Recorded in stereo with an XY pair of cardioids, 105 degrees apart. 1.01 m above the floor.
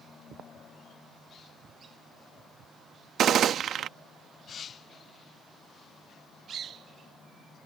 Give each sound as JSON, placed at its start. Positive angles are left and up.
{"t": 3.2, "sound": "a gunshot", "azimuth_deg": -60}